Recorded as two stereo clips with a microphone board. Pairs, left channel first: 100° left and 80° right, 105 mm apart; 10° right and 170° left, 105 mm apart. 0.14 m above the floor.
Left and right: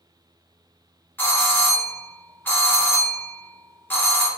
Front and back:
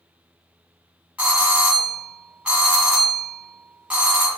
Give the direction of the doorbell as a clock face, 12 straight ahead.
8 o'clock.